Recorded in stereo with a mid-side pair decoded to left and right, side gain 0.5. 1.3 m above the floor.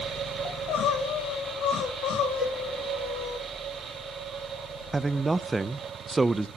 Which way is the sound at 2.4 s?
45° right.